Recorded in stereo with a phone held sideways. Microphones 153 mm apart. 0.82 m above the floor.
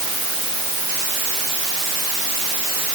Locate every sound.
Only background noise.